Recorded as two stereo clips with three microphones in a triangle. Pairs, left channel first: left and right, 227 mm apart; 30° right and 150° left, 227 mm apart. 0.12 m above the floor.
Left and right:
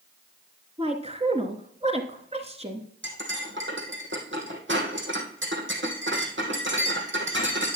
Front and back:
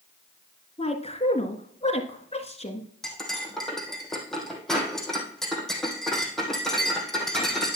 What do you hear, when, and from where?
0.8 s a woman speaking: 60° right, 1.4 m
3.0 s cutlery clinking: 120° right, 2.5 m